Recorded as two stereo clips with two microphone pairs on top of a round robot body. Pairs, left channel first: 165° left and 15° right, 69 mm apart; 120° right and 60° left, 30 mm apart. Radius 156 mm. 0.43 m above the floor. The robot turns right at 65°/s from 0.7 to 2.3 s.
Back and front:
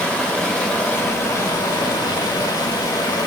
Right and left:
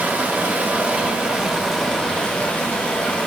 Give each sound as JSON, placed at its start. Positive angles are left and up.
{"t": 0.0, "sound": "running water", "azimuth_deg": 85, "distance_m": 1.6}